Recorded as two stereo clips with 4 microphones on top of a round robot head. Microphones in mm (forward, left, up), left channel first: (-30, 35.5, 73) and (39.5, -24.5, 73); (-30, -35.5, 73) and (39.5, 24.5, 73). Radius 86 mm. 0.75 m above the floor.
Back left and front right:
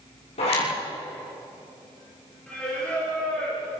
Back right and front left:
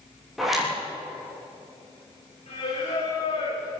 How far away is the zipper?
About 8 m.